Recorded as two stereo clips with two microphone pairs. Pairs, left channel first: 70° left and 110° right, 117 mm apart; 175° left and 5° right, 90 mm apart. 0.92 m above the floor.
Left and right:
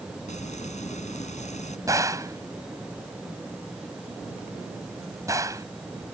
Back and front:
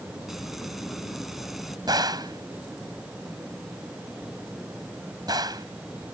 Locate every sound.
0.3 s frying: 80° left
1.9 s a gunshot: 50° right